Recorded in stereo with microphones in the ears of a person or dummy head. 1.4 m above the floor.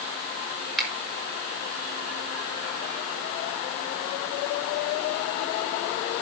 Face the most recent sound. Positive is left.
turn(degrees=0)  # may be behind; listen again after turning